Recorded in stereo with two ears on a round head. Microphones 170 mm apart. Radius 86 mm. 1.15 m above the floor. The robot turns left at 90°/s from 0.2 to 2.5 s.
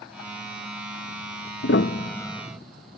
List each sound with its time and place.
1.6 s a piano: 60° left (ahead or behind); by 2.6 s 5° right (ahead or behind)